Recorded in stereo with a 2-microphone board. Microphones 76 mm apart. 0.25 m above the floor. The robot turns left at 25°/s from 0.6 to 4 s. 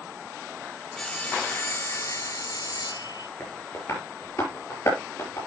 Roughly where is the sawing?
Behind.